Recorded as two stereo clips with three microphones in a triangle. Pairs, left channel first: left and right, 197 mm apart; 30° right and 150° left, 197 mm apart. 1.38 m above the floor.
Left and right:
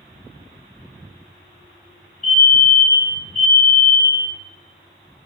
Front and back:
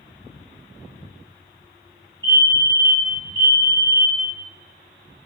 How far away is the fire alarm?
About 3 m.